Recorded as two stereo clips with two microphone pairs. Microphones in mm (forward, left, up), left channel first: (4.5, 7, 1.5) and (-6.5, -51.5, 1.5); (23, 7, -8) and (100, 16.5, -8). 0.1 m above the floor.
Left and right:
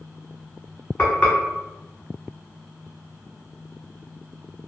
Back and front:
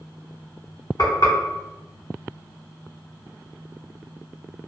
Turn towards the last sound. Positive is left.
turn(degrees=155)